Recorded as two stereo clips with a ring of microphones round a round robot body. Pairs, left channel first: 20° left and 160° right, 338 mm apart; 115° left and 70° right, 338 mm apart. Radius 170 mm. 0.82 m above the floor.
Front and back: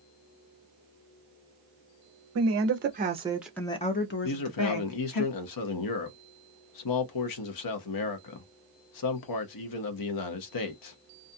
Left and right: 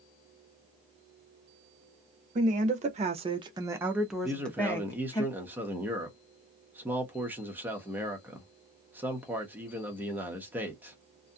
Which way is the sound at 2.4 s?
130° right.